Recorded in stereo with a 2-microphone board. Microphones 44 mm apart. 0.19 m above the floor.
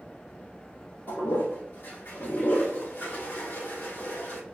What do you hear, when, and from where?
1.1 s a toilet flushing: 55° left (ahead or behind), 1.4 m